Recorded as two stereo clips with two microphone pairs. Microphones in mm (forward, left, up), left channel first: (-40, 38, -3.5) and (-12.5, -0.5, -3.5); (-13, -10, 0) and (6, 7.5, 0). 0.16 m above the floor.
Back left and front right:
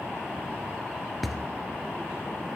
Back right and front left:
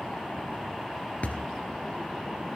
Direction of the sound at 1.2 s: 145° right.